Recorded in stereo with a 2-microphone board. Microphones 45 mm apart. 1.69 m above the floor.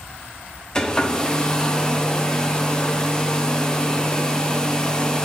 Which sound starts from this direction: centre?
A hair dryer, at 0.8 s.